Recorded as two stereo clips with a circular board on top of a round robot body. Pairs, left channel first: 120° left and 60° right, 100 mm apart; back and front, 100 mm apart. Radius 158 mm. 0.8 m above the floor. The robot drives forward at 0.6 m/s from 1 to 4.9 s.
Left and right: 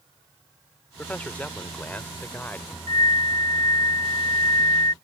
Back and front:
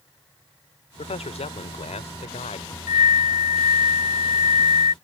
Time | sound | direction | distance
1.0 | a man speaking | 165° right | ?
2.9 | a flute | 175° left | ?